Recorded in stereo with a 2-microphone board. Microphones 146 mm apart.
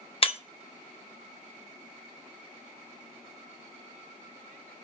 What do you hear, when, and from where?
0.2 s breaking glass: 40° left (ahead or behind), 0.6 m